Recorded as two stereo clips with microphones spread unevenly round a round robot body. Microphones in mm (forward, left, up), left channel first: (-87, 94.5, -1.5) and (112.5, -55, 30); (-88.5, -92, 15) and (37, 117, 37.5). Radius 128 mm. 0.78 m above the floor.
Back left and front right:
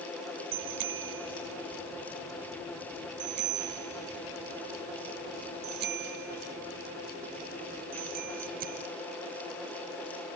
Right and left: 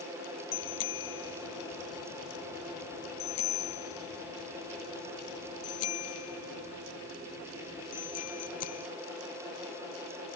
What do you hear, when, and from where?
0.5 s a bicycle bell: 80° right; by 8.9 s 95° right